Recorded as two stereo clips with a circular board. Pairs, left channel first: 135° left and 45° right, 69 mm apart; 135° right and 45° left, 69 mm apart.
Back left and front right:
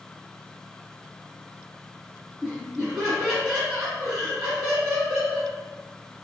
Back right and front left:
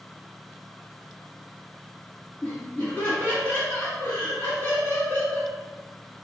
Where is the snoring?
No snoring in this recording.